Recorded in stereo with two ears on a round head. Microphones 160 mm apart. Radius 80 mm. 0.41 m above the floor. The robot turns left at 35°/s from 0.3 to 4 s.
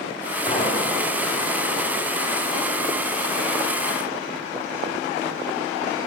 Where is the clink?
25° left (ahead or behind), 1.9 m; by 0.7 s 15° left (ahead or behind), 1.9 m.